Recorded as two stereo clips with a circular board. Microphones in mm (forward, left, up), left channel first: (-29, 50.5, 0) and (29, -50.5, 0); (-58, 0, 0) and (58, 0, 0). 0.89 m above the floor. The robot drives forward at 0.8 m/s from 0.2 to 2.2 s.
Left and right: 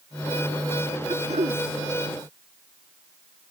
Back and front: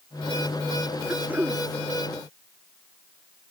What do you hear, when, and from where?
1.1 s throat clearing: 75° right